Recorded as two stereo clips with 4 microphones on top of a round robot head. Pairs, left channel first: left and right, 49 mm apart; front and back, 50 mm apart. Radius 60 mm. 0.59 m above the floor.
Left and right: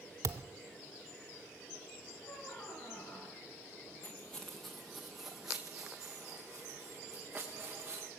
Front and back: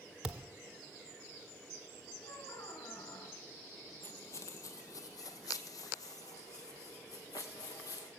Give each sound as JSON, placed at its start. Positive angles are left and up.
{"t": 0.2, "sound": "a thud", "azimuth_deg": -105, "distance_m": 0.7}
{"t": 2.2, "sound": "a squeak", "azimuth_deg": 25, "distance_m": 3.0}
{"t": 4.0, "sound": "footsteps", "azimuth_deg": 25, "distance_m": 0.6}